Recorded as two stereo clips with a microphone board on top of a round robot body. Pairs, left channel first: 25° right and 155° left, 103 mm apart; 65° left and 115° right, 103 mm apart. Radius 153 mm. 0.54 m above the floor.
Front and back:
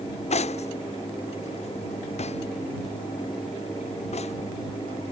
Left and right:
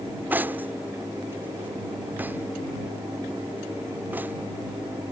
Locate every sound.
0.3 s cutlery clinking: 40° right